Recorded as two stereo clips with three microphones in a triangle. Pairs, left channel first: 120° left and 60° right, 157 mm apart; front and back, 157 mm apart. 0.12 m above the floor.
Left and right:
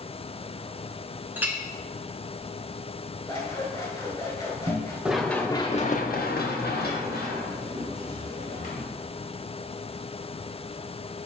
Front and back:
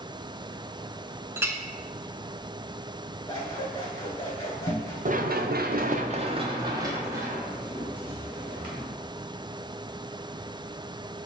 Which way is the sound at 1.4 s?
120° right.